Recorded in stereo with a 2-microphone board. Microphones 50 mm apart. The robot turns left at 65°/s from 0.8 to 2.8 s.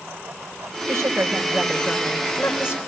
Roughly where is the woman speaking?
Right.